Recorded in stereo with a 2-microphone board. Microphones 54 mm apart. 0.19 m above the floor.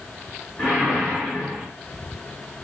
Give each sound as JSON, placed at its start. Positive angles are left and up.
{"t": 0.6, "sound": "a whoosh", "side_deg": 0, "distance_m": 1.3}